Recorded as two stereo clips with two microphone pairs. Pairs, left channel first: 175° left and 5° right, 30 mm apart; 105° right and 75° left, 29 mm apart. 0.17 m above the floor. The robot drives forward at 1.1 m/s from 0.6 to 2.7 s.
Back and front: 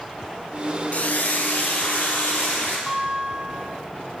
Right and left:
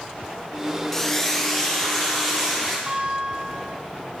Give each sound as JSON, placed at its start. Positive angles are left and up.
{"t": 0.9, "sound": "frying", "azimuth_deg": 175, "distance_m": 0.5}
{"t": 2.9, "sound": "a guitar", "azimuth_deg": 80, "distance_m": 1.9}